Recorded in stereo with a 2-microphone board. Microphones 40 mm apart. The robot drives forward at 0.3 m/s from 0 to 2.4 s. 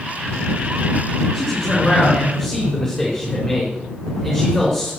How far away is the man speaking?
About 4 m.